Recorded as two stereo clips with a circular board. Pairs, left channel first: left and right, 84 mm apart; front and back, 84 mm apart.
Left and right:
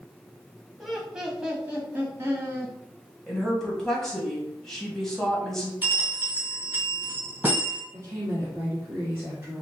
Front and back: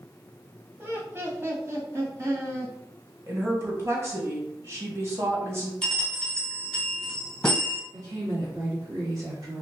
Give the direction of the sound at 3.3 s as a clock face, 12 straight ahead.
6 o'clock.